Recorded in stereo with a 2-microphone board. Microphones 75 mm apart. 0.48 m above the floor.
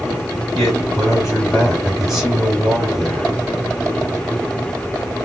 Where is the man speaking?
Centre (ahead or behind), 4 m.